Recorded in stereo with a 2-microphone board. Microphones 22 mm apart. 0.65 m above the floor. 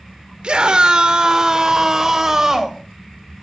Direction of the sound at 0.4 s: 50° right (ahead or behind).